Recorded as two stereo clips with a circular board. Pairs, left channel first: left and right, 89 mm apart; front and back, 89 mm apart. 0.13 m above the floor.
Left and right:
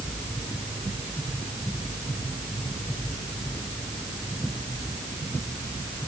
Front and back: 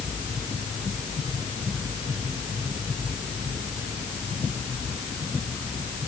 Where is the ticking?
I don't hear ticking.